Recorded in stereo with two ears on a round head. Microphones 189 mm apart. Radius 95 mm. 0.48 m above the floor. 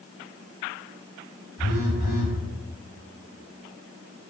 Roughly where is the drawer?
No drawer in this recording.